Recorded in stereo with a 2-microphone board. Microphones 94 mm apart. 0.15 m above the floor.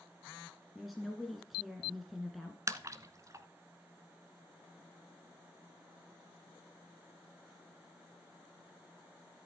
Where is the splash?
35° right (ahead or behind), 0.9 m.